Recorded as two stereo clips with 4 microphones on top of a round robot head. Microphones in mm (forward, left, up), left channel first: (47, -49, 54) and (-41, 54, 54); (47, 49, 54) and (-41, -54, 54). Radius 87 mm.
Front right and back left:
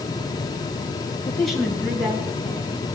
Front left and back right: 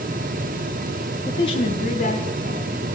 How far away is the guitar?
No guitar in this recording.